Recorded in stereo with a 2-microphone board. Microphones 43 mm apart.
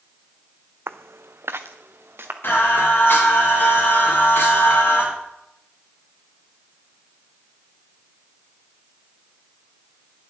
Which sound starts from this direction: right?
Footsteps, at 0.9 s.